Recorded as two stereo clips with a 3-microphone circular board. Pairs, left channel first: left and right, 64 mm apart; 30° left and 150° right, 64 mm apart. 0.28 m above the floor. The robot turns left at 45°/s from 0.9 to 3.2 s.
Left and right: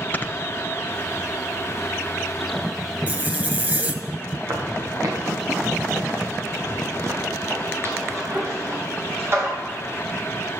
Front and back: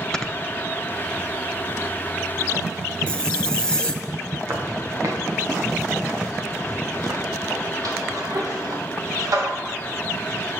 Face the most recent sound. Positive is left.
turn(degrees=-135)